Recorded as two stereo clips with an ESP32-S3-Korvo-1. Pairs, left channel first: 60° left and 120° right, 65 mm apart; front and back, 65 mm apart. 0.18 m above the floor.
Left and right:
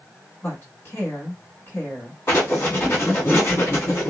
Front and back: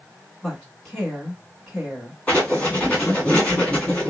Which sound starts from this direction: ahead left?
Writing, at 2.3 s.